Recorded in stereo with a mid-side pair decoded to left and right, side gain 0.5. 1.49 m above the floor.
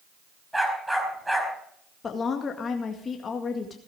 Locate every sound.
0.5 s a dog barking: 5° right, 4.5 m
2.0 s a woman speaking: 40° left, 2.0 m